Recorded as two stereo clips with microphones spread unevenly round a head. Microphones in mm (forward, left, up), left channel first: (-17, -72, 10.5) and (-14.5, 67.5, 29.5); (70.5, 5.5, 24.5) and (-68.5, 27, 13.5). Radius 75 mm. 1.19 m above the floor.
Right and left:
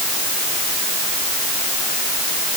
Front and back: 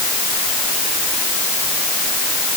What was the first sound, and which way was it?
Only background noise.